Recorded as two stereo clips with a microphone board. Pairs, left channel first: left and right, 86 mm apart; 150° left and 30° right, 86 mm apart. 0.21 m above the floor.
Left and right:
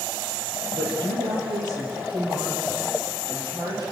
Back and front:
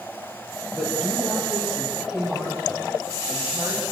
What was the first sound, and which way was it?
A woman speaking, 115° right.